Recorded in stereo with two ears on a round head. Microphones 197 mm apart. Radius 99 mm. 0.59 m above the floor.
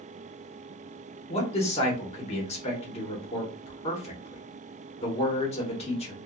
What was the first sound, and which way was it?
A man speaking, 30° left (ahead or behind).